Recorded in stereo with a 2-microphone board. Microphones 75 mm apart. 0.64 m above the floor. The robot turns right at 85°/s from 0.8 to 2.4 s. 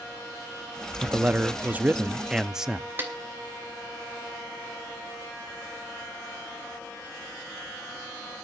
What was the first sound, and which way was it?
A man speaking, 15° right (ahead or behind).